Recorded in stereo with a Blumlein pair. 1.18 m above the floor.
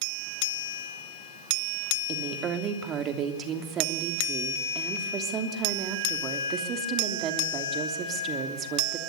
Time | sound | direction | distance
2.1 | a woman speaking | 30° right | 3 m